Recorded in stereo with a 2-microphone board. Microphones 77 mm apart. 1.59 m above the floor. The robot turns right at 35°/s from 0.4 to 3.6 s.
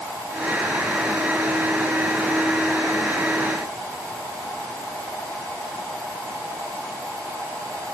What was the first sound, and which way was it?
Only background noise.